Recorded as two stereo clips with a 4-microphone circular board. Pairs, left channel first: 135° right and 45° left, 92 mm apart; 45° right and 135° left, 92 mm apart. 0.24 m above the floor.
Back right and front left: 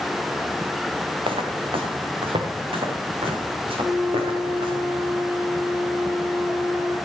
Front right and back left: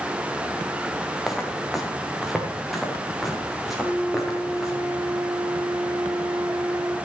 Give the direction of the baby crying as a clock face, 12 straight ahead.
No baby crying in this recording.